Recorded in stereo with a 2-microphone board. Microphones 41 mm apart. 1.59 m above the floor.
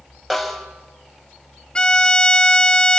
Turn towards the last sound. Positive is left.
turn(degrees=20)  # may be behind; listen again after turning